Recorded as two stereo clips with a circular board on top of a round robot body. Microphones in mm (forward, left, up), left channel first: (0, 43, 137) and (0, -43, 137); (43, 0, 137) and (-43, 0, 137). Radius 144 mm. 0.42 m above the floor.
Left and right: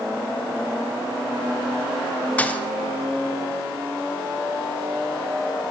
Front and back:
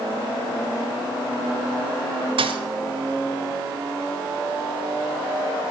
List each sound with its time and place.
2.4 s a thud: 165° left, 1.0 m